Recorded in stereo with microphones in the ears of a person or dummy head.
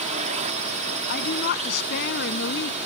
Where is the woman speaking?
60° left (ahead or behind).